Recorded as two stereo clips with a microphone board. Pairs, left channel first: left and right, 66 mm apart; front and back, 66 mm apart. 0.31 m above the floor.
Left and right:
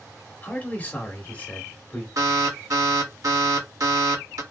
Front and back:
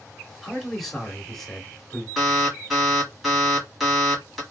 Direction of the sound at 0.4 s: 80° left.